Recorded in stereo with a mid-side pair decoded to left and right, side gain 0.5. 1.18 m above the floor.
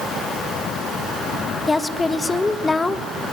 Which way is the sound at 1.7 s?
15° left.